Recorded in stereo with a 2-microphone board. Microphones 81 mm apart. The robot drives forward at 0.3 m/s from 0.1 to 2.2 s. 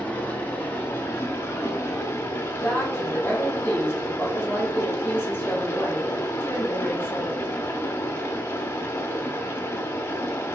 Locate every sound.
0.0 s running water: 25° left (ahead or behind), 0.7 m; by 10.6 s 35° left (ahead or behind), 0.5 m
2.5 s a woman speaking: 25° left (ahead or behind), 1.0 m